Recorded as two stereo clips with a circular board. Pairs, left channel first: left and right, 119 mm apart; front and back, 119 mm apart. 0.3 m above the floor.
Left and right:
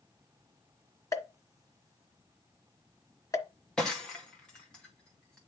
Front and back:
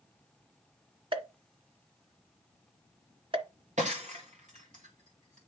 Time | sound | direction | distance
1.1 | a pop | 150° left | 1.3 m
3.8 | breaking glass | 175° left | 2 m